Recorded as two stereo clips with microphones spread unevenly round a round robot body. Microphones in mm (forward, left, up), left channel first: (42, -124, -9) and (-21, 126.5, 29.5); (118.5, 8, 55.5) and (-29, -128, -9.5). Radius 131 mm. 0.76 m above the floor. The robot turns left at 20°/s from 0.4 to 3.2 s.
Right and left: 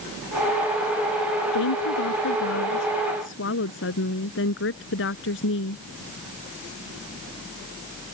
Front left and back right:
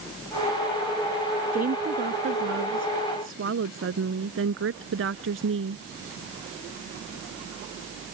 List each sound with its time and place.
1.5 s a woman speaking: 90° right; by 5.8 s 120° right